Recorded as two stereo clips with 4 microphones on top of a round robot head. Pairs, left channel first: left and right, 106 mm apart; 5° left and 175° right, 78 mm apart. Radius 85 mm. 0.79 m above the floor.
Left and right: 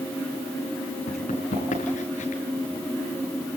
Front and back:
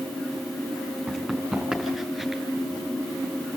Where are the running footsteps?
105° left, 6.5 m; by 2.4 s 100° left, 6 m.